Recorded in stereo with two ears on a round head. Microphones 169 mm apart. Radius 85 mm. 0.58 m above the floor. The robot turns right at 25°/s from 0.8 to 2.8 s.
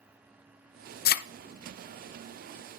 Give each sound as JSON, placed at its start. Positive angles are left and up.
{"t": 1.1, "sound": "a thud", "side_deg": 55, "distance_m": 0.5}